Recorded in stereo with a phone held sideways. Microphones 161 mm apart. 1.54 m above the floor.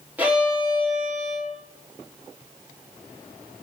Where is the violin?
10° right (ahead or behind), 3.5 m.